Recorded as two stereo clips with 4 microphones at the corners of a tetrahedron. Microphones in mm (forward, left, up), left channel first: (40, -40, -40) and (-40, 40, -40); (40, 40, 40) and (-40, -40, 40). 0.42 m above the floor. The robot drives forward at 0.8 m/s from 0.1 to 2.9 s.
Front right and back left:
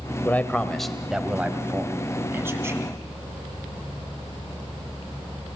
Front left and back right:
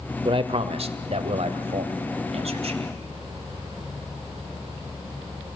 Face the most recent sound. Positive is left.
turn(degrees=-160)